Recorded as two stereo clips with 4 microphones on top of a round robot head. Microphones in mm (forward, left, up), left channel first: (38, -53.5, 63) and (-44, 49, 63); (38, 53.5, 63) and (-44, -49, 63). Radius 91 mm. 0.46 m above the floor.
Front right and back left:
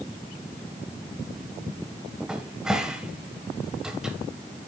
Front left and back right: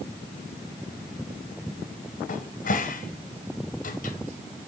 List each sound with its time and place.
2.3 s a cupboard door: 45° left, 1.6 m